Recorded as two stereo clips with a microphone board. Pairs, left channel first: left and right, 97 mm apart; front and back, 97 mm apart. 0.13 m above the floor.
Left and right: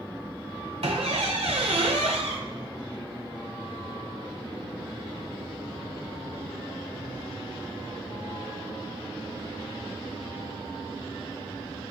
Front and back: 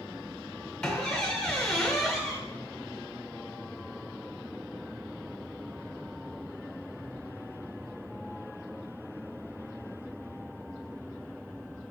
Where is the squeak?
75° right, 0.6 m.